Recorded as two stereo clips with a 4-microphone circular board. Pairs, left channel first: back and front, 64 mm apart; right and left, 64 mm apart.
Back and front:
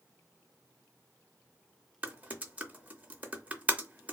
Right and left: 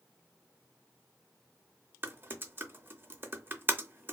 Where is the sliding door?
No sliding door in this recording.